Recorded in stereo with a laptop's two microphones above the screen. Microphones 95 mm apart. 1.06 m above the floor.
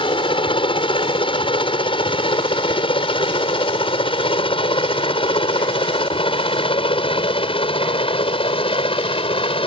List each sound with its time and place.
0.0 s a helicopter: 65° left (ahead or behind); by 9.7 s 75° left (ahead or behind)